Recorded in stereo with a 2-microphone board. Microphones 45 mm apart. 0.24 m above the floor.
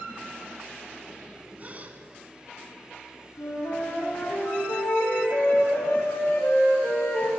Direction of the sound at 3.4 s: 70° left (ahead or behind).